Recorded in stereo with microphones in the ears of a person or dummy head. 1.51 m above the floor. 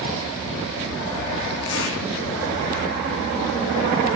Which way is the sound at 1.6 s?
75° left (ahead or behind).